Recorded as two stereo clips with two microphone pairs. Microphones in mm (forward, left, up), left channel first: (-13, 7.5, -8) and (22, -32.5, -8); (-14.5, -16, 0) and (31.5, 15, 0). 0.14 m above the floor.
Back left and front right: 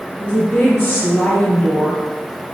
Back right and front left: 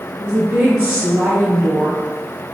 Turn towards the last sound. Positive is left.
turn(degrees=85)